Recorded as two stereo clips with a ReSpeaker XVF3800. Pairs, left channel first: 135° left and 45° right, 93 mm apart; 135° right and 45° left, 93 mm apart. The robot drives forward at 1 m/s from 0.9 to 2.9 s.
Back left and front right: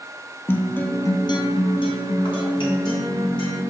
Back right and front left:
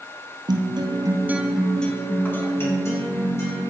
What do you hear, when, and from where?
0.5 s a guitar: 70° left, 0.6 m; by 3.6 s 165° left, 1.9 m